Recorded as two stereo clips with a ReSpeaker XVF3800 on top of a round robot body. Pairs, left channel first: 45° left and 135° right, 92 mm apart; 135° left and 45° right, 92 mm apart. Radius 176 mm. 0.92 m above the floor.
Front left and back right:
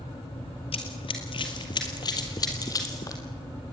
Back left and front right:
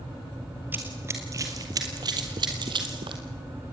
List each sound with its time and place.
0.7 s running footsteps: 25° left, 1.5 m; by 3.2 s 10° right, 2.5 m